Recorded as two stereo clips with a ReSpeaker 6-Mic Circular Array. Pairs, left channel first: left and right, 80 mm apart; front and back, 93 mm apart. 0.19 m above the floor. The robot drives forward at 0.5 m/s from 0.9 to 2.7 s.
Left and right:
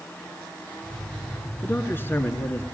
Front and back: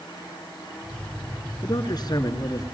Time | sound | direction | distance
1.6 | a man speaking | 30° left | 2.5 m